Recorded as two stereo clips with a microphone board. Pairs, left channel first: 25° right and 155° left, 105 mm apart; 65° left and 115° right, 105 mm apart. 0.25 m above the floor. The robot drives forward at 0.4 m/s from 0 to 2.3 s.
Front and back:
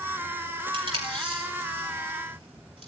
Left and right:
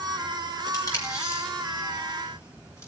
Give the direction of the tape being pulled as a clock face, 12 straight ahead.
8 o'clock.